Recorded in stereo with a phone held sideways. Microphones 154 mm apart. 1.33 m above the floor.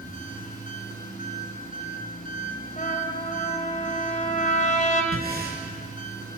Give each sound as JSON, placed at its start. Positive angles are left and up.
{"t": 0.0, "sound": "an engine running", "side_deg": 60, "distance_m": 5.5}
{"t": 2.8, "sound": "a trumpet", "side_deg": 50, "distance_m": 2.5}
{"t": 5.1, "sound": "breathing", "side_deg": -75, "distance_m": 4.5}